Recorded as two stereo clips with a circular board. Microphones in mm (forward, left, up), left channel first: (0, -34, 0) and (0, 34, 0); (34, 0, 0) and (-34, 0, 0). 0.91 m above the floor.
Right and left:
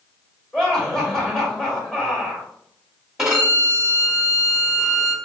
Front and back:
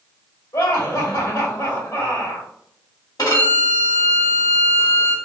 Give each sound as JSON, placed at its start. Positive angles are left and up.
{"t": 0.5, "sound": "laughter", "azimuth_deg": -10, "distance_m": 1.8}
{"t": 3.2, "sound": "a violin", "azimuth_deg": 10, "distance_m": 1.5}